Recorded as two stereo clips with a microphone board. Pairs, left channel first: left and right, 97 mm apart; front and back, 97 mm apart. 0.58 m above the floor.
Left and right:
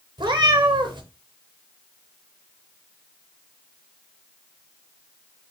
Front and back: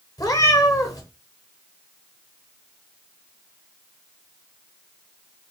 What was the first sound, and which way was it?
A cat meowing, 50° right.